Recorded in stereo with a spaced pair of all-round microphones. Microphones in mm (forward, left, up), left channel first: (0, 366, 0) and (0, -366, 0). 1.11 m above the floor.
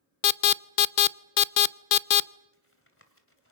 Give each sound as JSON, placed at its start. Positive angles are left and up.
{"t": 0.2, "sound": "an alarm", "side_deg": 85, "distance_m": 0.6}
{"t": 2.5, "sound": "tapping", "side_deg": 15, "distance_m": 2.5}